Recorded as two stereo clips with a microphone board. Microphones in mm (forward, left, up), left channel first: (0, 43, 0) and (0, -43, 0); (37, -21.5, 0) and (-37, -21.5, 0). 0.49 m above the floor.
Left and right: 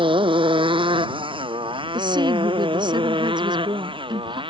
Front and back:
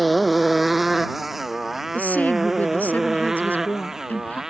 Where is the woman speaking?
65° right.